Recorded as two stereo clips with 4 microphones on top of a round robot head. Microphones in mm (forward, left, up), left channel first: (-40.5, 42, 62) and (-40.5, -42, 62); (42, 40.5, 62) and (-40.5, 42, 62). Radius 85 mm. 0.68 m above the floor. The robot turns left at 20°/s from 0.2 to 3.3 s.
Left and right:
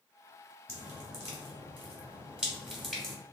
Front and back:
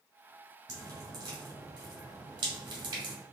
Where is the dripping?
135° right, 1.9 m; by 3.1 s 175° left, 1.9 m.